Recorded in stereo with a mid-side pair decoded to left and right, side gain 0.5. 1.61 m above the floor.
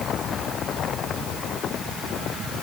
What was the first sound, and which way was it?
Only background noise.